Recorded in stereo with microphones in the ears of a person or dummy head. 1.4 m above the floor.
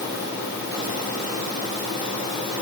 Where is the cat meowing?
No cat meowing in this recording.